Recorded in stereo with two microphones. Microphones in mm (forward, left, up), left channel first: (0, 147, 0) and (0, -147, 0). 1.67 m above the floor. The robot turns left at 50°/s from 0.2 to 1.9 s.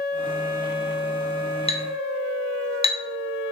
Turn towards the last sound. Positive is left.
turn(degrees=20)  # may be behind; listen again after turning